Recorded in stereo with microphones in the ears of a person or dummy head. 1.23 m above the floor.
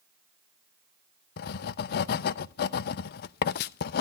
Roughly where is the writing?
Left.